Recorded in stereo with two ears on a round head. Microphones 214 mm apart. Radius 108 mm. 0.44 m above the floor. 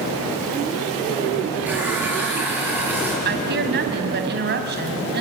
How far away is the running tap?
About 6 m.